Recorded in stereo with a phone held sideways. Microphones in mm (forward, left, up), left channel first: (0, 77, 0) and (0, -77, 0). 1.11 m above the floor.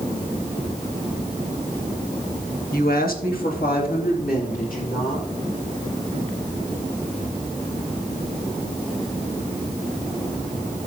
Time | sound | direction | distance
2.7 | a woman speaking | 70° left (ahead or behind) | 1.3 m